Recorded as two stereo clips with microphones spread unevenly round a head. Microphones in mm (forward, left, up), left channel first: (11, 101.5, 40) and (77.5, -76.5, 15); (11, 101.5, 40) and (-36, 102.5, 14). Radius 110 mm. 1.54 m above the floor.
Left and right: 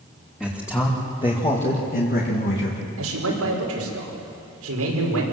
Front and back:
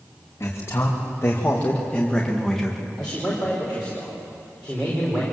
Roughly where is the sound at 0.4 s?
Ahead left.